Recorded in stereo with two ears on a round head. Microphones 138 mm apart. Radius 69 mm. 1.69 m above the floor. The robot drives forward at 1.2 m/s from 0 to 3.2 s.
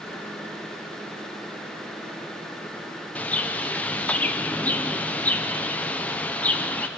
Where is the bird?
10° left (ahead or behind), 0.8 m.